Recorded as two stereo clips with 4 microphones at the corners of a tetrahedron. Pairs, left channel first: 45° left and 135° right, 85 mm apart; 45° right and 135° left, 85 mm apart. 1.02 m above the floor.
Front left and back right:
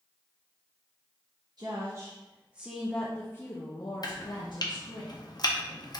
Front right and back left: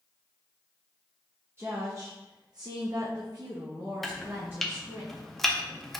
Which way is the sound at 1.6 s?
165° right.